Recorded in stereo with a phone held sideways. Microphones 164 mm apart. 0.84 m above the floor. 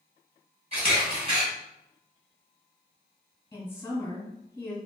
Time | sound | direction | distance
0.7 | a camera shutter | 40° right (ahead or behind) | 1.9 m
3.5 | a woman speaking | 15° left (ahead or behind) | 1.0 m